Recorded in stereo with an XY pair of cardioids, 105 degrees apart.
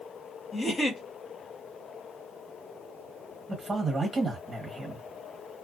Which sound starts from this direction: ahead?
A man speaking, at 3.5 s.